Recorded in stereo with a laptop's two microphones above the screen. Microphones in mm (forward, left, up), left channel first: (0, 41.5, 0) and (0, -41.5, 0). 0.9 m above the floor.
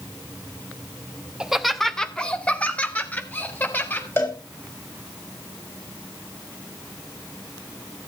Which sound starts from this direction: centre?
Laughter, at 1.4 s.